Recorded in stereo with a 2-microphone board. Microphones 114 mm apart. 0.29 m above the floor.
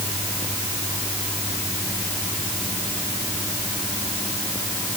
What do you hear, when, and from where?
Only background noise.